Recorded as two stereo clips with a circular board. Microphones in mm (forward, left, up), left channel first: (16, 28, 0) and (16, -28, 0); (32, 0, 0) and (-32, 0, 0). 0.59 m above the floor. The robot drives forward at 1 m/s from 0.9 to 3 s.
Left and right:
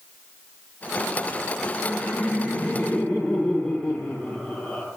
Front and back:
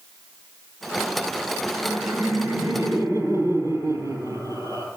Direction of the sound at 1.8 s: 155° left.